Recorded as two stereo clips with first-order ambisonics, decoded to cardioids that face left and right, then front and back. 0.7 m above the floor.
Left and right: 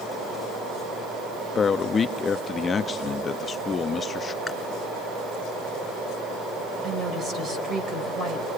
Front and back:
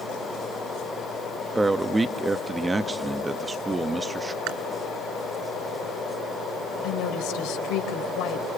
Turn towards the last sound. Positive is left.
turn(degrees=-25)